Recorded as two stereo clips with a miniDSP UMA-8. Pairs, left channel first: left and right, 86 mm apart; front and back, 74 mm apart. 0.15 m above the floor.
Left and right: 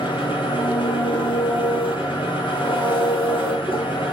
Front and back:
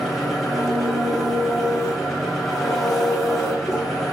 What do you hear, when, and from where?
0.0 s an engine running: 90° left, 5.5 m